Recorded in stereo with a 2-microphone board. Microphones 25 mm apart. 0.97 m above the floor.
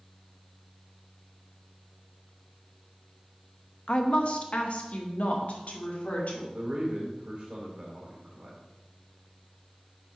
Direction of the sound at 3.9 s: 40° left (ahead or behind).